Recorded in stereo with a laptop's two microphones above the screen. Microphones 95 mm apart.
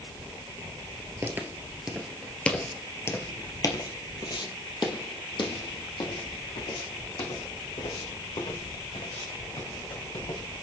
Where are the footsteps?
25° right (ahead or behind), 1.2 m; by 10.4 s 75° left (ahead or behind), 5.5 m.